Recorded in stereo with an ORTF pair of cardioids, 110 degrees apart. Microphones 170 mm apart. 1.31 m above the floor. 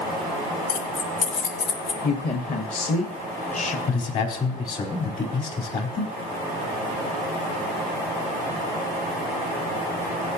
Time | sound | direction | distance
0.7 | keys jangling | 65° left | 3 m
2.0 | a woman speaking | 50° left | 1.6 m
3.9 | a man speaking | 55° left | 4.5 m